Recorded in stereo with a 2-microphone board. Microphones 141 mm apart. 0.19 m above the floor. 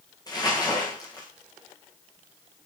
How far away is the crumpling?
About 6.5 m.